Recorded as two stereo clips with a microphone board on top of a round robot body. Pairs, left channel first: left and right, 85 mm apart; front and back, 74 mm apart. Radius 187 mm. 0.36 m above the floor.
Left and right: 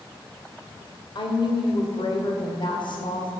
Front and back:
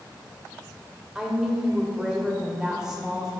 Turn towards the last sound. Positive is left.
turn(degrees=100)